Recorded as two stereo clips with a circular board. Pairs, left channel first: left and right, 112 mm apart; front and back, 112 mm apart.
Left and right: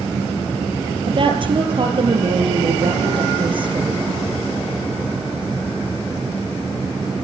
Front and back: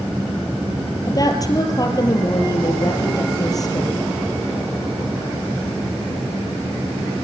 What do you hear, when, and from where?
1.1 s a woman speaking: 55° right, 3.5 m